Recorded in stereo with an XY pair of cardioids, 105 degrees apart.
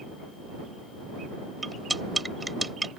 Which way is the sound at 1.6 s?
20° right.